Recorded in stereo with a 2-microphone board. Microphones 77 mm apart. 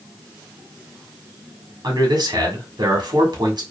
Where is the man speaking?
65° right (ahead or behind), 1.2 m.